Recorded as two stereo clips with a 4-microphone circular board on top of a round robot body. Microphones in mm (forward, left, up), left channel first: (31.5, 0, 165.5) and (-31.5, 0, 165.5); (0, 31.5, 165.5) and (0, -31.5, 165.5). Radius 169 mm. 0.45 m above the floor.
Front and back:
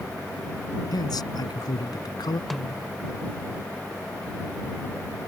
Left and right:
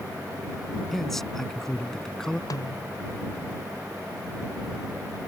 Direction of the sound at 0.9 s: 5° left.